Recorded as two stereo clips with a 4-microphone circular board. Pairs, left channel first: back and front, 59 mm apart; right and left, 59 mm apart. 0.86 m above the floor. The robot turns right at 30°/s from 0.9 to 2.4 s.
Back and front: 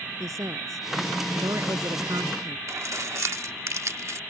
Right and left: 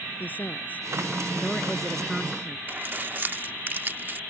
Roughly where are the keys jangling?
Ahead left.